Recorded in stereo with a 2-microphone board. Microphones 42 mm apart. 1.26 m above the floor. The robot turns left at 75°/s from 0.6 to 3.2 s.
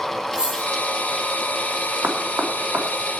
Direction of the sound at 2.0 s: 55° right (ahead or behind).